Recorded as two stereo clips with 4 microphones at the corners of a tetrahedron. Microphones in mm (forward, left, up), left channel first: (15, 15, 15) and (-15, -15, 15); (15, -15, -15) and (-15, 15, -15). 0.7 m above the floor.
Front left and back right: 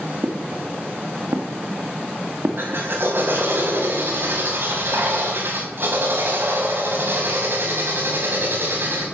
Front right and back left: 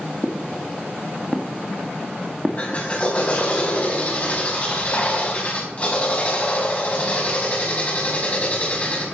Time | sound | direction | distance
0.2 | footsteps | 120° right | 4 m
2.6 | a drill | 100° right | 5 m